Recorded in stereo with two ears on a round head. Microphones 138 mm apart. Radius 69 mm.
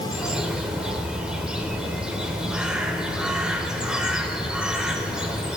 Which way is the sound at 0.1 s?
5° right (ahead or behind).